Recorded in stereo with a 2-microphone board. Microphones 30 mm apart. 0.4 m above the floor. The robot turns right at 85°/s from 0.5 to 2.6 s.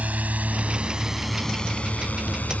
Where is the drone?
60° right (ahead or behind); by 2.6 s 60° left (ahead or behind).